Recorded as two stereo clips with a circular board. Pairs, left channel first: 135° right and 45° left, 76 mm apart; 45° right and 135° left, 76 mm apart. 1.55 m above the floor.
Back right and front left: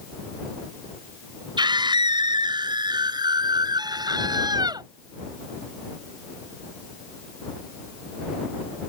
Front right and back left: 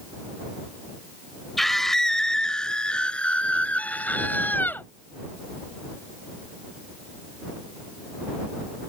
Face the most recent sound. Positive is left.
turn(degrees=20)